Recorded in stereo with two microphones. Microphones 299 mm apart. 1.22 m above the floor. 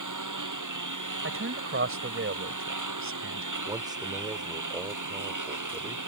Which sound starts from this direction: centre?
A man speaking, at 3.7 s.